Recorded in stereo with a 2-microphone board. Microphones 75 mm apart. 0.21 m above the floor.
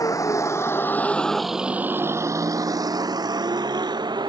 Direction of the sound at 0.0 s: 50° left (ahead or behind).